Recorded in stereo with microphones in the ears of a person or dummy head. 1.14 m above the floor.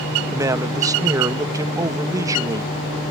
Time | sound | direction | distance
0.3 | a man speaking | 15° right (ahead or behind) | ?